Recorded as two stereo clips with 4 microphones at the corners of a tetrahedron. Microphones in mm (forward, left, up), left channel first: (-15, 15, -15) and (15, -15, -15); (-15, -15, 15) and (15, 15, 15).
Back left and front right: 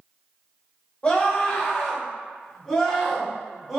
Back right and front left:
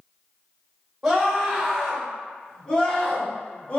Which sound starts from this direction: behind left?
A scream, at 1.0 s.